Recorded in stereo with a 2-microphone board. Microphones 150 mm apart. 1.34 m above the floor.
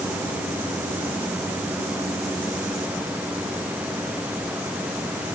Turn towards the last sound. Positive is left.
No sound to turn to.